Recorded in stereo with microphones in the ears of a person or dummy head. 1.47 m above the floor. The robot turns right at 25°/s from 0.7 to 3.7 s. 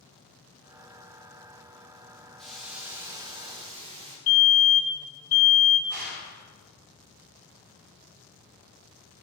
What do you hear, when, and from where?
2.4 s a hiss: straight behind, 1.2 m; by 4.2 s 150° right, 1.2 m
4.3 s a fire alarm: 35° left (ahead or behind), 1.9 m
5.9 s a gunshot: 55° right (ahead or behind), 3 m